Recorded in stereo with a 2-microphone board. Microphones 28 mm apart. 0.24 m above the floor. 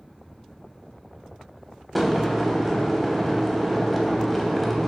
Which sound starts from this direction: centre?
Boiling, at 1.9 s.